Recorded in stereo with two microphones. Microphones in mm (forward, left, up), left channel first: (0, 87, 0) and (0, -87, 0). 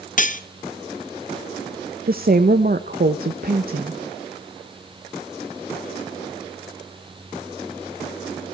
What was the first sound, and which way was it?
Cutlery clinking, 50° left (ahead or behind).